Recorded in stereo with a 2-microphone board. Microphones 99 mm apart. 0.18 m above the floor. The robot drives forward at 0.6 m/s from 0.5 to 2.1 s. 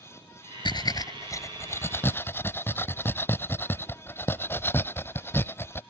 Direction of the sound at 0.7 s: 55° left (ahead or behind).